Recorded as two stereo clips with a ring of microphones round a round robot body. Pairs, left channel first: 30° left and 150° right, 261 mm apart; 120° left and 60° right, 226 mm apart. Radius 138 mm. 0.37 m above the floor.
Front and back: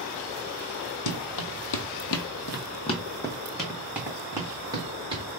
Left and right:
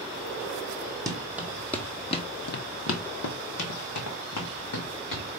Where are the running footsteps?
15° left, 0.9 m; by 5.2 s 135° left, 1.7 m.